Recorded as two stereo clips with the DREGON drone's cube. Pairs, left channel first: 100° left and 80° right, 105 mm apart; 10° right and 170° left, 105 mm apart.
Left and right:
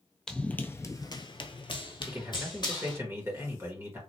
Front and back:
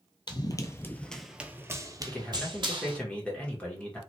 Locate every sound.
0.3 s running footsteps: 20° left, 0.7 m; by 3.0 s 145° left, 1.1 m
2.1 s a man speaking: 70° right, 1.3 m